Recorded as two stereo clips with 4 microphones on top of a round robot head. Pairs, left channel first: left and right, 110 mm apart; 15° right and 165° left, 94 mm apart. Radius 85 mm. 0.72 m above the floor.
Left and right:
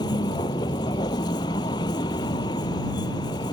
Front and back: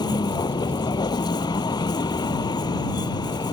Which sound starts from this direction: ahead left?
A vehicle, at 0.0 s.